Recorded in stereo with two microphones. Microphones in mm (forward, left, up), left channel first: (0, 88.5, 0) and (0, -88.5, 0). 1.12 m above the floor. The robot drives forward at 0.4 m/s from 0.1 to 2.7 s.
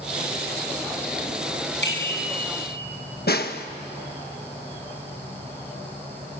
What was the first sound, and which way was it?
A bicycle bell, 85° left.